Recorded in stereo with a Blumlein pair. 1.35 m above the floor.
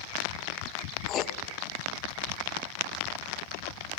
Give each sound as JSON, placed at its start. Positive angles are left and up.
{"t": 1.1, "sound": "writing", "azimuth_deg": 30, "distance_m": 0.6}